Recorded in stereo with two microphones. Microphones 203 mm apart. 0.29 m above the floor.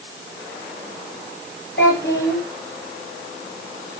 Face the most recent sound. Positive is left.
turn(degrees=65)  # may be behind; listen again after turning